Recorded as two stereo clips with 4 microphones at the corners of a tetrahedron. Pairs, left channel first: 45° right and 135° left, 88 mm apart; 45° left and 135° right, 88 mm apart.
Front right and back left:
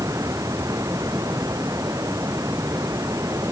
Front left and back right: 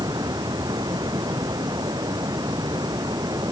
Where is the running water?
175° right.